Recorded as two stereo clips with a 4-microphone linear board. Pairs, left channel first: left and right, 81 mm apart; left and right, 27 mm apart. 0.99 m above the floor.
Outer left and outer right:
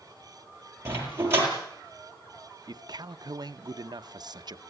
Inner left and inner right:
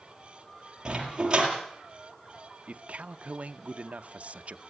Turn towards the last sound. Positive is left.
turn(degrees=-55)  # may be behind; listen again after turning